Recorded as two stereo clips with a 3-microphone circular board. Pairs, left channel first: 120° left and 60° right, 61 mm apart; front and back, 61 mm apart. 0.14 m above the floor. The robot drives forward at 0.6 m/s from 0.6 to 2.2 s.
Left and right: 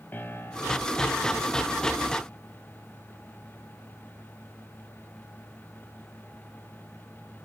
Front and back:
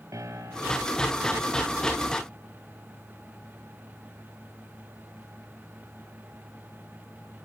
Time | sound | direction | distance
0.1 | a piano | 170° left | 2.5 m